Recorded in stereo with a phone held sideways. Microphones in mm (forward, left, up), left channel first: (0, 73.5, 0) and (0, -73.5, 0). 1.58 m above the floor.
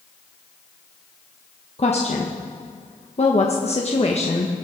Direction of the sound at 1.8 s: 45° left (ahead or behind).